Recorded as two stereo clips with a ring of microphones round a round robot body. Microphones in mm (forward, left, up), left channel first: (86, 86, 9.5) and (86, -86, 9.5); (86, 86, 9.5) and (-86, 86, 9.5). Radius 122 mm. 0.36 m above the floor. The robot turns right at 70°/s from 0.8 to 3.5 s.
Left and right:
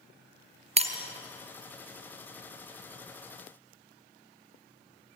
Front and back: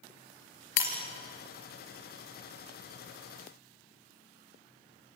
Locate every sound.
0.8 s breaking glass: 35° right, 2.5 m; by 1.0 s 25° right, 2.5 m